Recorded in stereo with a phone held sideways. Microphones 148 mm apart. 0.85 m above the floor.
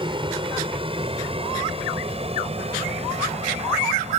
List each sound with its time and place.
0.0 s an aircraft: 30° right (ahead or behind); by 4.2 s 45° right (ahead or behind)